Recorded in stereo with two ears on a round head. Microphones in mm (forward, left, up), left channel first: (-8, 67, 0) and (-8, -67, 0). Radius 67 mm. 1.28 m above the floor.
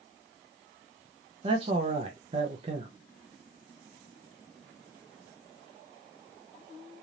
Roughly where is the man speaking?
Right.